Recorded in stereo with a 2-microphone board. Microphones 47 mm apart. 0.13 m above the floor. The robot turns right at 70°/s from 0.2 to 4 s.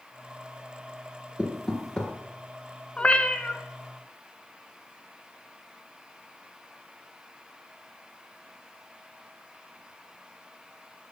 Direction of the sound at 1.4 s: 20° right (ahead or behind).